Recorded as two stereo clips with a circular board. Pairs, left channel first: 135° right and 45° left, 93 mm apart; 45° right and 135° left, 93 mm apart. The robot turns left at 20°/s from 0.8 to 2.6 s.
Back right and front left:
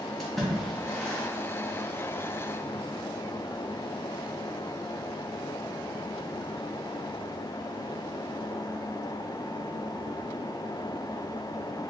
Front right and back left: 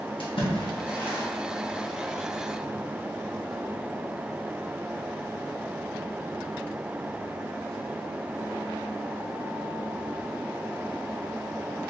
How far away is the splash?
About 1.2 m.